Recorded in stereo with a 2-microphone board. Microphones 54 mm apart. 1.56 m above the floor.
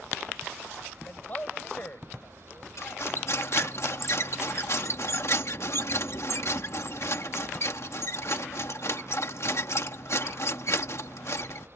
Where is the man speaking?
35° left (ahead or behind).